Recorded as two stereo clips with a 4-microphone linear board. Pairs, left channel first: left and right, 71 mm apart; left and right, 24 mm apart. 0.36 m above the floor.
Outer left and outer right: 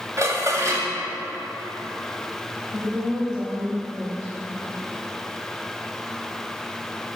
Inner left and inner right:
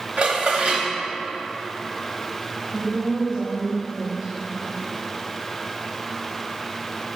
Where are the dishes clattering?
50° right (ahead or behind), 1.1 m.